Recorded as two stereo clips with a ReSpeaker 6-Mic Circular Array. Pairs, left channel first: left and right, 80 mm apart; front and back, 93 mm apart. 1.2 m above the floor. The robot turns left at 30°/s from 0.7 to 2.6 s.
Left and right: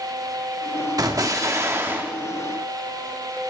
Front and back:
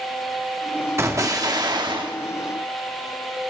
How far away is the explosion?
About 1.3 m.